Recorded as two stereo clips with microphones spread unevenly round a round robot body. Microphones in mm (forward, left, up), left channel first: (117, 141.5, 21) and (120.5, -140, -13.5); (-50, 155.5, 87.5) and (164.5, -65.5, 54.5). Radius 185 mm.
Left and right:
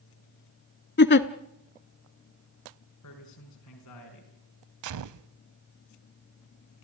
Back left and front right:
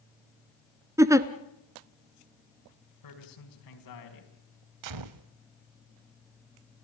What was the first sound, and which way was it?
A giggle, 35° left.